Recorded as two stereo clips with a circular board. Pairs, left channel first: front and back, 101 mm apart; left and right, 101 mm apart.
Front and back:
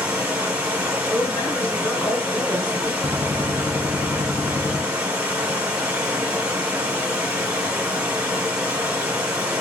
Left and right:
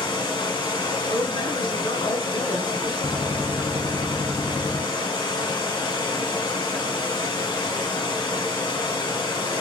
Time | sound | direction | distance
0.0 | running water | 105° left | 1.1 m
1.1 | a woman speaking | 80° left | 2 m
3.0 | a gunshot | 60° left | 2.5 m